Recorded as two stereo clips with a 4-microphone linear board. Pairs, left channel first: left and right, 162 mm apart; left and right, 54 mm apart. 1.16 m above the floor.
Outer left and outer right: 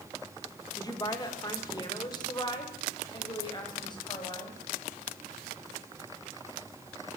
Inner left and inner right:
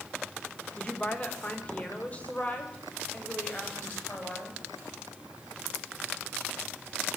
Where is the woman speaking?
25° left (ahead or behind), 4 m; by 4.6 s 30° left (ahead or behind), 9.5 m.